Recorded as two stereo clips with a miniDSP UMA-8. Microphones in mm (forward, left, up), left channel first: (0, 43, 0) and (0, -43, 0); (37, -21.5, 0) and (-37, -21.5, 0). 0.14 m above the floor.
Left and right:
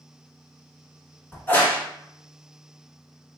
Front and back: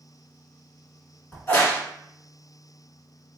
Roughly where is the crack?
Ahead left.